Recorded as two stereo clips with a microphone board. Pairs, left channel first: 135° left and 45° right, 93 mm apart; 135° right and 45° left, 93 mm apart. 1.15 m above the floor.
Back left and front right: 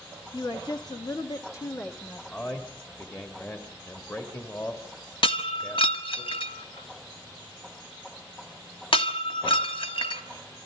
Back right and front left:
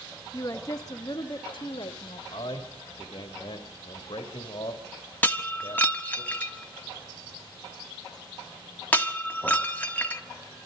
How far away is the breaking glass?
About 1.6 m.